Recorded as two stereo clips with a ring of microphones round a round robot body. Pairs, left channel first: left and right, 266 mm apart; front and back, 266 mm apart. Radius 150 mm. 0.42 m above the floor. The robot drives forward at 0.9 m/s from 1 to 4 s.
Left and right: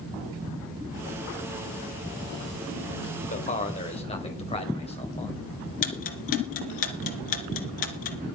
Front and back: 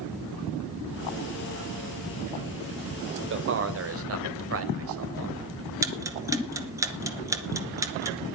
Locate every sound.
3.3 s a man speaking: 150° left, 2 m; by 5.5 s 155° left, 2.5 m
5.8 s ticking: 100° left, 2.5 m